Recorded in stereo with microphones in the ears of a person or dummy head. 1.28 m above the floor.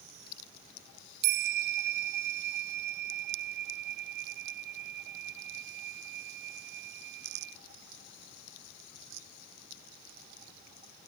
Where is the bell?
60° right (ahead or behind).